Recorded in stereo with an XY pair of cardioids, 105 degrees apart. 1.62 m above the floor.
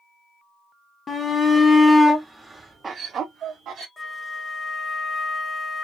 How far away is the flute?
About 0.7 m.